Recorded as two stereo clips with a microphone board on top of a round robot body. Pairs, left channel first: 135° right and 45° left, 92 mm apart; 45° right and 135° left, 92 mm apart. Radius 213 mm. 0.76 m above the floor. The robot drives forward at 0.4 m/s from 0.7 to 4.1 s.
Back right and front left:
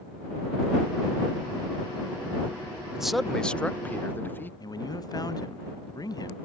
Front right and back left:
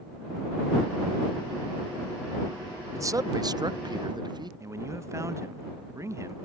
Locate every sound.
2.9 s a man speaking: 120° left; by 4.5 s 160° left
4.6 s a man speaking: 170° right